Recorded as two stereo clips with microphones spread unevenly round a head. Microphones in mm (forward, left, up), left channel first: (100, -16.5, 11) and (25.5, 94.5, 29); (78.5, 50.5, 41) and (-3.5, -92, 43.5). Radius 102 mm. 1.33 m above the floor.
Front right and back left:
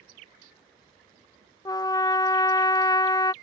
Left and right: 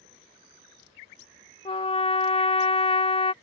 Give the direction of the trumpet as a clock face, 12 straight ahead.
12 o'clock.